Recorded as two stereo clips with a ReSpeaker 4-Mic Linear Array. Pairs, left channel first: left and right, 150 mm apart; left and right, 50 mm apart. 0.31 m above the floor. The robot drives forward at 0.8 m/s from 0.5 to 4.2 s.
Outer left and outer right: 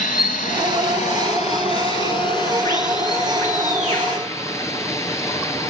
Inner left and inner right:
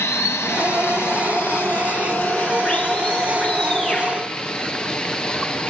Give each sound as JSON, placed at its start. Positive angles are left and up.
{"t": 0.0, "sound": "running water", "side_deg": 65, "distance_m": 1.2}